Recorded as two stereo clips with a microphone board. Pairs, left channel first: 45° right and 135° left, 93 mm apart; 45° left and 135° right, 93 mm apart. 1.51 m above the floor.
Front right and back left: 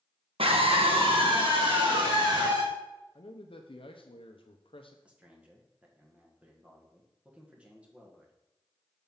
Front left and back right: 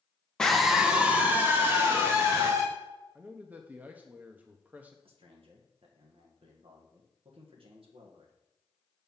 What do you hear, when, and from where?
0.4 s a scream: 130° left, 1.3 m; by 2.6 s 170° left, 3.5 m
3.1 s a man speaking: 65° right, 0.7 m
5.0 s a man speaking: 150° right, 1.5 m